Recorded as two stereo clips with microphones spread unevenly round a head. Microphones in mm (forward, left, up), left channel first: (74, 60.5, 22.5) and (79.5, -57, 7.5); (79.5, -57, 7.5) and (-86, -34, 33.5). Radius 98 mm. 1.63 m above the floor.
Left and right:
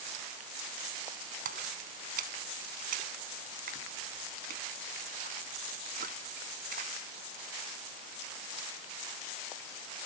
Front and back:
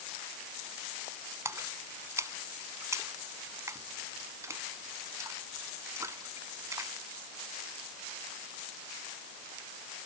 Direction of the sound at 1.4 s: 115° right.